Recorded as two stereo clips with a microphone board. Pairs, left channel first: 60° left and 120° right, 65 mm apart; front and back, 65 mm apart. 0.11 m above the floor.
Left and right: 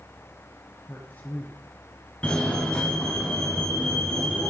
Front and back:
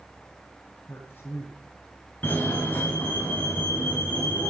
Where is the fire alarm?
10° left, 2.5 m.